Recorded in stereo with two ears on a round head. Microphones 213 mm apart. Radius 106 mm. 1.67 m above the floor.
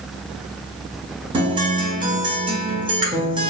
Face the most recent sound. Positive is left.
turn(degrees=-20)  # may be behind; listen again after turning